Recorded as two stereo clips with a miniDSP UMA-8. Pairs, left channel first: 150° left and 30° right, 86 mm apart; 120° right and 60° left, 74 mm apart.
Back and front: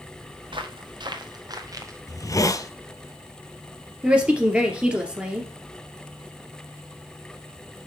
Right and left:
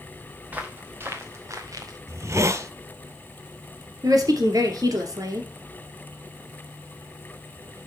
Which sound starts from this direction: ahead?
Footsteps, at 0.5 s.